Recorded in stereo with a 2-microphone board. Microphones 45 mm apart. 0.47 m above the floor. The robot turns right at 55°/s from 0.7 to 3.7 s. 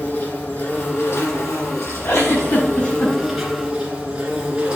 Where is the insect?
35° left, 2.5 m; by 4.8 s 160° right, 2.5 m.